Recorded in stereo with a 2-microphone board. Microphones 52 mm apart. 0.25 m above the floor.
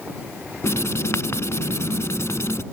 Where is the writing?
75° left (ahead or behind).